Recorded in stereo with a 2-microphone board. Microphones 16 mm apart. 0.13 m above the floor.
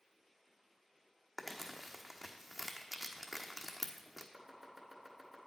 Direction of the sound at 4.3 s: 20° right (ahead or behind).